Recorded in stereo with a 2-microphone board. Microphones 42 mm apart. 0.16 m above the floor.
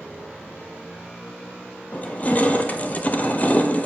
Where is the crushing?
30° left (ahead or behind), 0.8 m.